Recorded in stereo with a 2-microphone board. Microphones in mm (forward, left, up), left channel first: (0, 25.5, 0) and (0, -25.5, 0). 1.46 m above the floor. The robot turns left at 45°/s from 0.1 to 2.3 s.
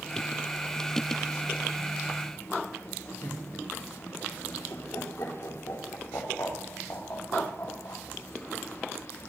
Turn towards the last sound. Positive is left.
turn(degrees=70)  # may be behind; listen again after turning